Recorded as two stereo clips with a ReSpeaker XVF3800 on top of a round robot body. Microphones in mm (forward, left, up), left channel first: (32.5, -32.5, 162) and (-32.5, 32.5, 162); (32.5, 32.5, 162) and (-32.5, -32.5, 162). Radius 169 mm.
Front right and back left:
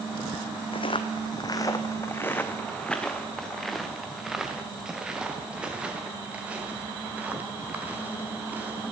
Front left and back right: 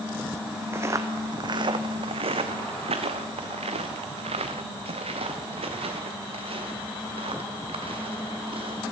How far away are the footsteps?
About 1.2 m.